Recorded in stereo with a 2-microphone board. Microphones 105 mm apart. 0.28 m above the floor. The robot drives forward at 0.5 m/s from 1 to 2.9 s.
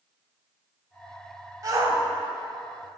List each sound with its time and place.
1.6 s a shout: 35° right (ahead or behind), 1.2 m; by 2.0 s 30° right (ahead or behind), 1.3 m